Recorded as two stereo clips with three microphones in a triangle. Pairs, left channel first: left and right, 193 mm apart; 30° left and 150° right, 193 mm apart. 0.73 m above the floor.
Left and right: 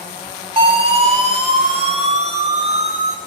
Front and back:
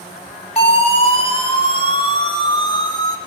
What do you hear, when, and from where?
0.6 s a siren: 30° right, 6 m; by 3.2 s 40° right, 4.5 m